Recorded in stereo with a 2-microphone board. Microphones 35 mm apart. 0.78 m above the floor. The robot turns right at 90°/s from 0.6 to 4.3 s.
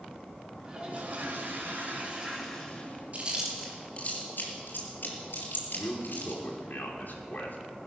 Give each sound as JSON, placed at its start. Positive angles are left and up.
{"t": 0.7, "sound": "a toilet flushing", "azimuth_deg": -160, "distance_m": 4.5}
{"t": 3.1, "sound": "chewing", "side_deg": -40, "distance_m": 4.0}
{"t": 5.8, "sound": "a man speaking", "side_deg": 65, "distance_m": 2.5}